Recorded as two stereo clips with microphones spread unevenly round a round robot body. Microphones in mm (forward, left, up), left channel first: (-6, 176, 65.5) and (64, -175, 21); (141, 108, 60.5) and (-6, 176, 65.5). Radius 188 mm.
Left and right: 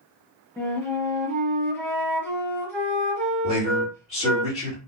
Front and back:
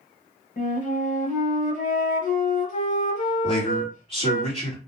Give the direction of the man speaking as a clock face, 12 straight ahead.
11 o'clock.